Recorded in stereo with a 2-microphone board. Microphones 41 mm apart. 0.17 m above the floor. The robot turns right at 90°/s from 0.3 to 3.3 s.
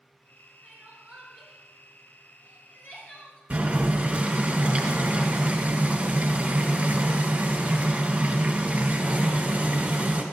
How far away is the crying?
About 2.5 m.